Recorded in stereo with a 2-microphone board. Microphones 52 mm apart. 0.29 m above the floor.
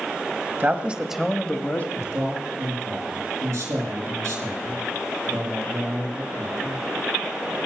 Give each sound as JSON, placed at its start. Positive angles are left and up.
{"t": 0.6, "sound": "a man speaking", "side_deg": -35, "distance_m": 1.3}
{"t": 1.9, "sound": "a man speaking", "side_deg": -75, "distance_m": 5.0}